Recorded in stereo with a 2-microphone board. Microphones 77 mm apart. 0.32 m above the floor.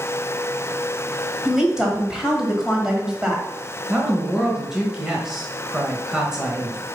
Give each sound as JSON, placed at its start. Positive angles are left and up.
{"t": 1.4, "sound": "a woman speaking", "side_deg": -5, "distance_m": 2.0}
{"t": 3.9, "sound": "a woman speaking", "side_deg": -10, "distance_m": 1.4}